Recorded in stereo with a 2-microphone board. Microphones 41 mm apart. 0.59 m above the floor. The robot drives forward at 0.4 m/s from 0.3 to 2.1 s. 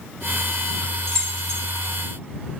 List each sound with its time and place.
1.1 s keys jangling: 15° left (ahead or behind), 0.9 m; by 1.6 s 20° left (ahead or behind), 0.7 m